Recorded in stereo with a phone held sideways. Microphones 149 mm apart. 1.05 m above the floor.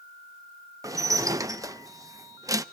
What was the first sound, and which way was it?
Dishes clattering, 20° right (ahead or behind).